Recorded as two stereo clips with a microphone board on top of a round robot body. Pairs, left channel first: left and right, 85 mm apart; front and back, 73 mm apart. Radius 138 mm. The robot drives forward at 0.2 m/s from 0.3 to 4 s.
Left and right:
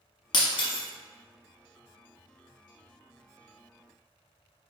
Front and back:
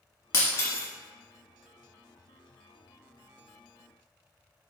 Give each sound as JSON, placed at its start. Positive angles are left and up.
{"t": 0.3, "sound": "breaking glass", "azimuth_deg": 60, "distance_m": 1.0}